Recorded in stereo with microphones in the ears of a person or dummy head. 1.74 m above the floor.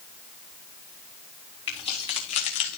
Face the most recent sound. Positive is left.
turn(degrees=30)  # may be behind; listen again after turning